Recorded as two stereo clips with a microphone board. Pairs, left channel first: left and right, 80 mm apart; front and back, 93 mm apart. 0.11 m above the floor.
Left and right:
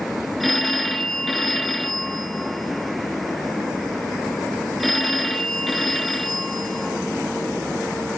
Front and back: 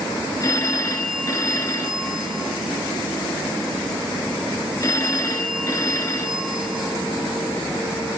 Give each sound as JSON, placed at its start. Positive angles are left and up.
{"t": 0.4, "sound": "a phone ringing", "azimuth_deg": 0, "distance_m": 1.0}